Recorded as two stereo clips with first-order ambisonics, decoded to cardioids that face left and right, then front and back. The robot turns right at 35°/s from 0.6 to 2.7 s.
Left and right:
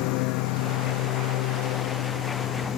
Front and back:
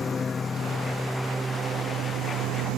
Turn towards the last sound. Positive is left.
turn(degrees=145)